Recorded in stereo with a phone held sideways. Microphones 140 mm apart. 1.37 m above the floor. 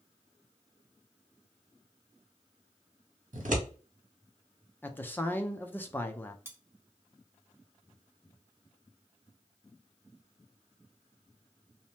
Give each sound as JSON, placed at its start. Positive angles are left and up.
{"t": 3.3, "sound": "scissors", "side_deg": -70, "distance_m": 1.0}
{"t": 4.8, "sound": "a man speaking", "side_deg": 15, "distance_m": 0.5}
{"t": 6.5, "sound": "cutlery clinking", "side_deg": -15, "distance_m": 0.5}